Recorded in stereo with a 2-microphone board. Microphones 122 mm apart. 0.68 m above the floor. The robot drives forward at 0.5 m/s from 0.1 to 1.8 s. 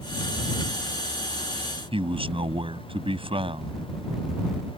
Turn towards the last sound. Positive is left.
turn(degrees=-45)  # may be behind; listen again after turning